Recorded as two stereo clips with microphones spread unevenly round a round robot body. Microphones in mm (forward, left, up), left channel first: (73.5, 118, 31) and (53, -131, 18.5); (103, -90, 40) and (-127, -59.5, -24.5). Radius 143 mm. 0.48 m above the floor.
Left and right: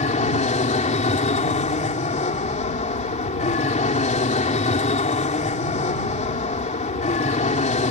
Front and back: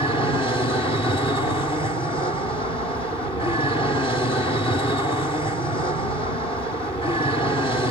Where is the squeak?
I don't hear a squeak.